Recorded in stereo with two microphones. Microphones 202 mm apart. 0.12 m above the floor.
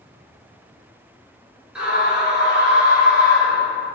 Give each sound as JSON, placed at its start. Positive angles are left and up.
{"t": 1.8, "sound": "a scream", "side_deg": -5, "distance_m": 1.5}